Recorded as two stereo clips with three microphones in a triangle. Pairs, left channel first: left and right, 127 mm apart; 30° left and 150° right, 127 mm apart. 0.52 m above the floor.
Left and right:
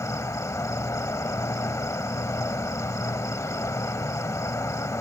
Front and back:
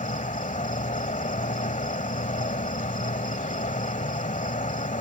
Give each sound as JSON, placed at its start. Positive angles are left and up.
{"t": 0.0, "sound": "an insect", "azimuth_deg": 25}